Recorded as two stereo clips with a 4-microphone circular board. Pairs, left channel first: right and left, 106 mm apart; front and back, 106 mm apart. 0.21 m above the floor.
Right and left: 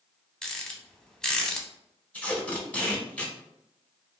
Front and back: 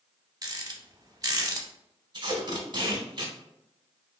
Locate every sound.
0.4 s a rattle: 170° right, 0.6 m
2.1 s tape being pulled: 160° right, 0.9 m